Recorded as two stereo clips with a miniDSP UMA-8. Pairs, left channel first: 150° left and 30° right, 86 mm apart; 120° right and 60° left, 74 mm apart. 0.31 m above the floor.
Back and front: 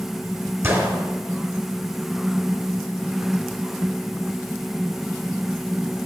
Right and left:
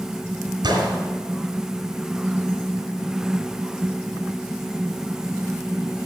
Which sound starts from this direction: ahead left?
A gunshot, at 0.6 s.